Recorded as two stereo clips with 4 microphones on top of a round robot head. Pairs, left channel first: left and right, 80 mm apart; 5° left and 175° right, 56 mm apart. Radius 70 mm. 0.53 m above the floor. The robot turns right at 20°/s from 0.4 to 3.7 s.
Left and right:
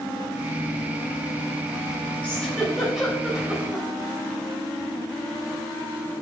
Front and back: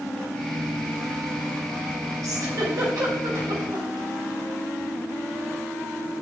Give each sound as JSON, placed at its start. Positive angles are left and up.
{"t": 2.2, "sound": "a giggle", "azimuth_deg": 165, "distance_m": 3.5}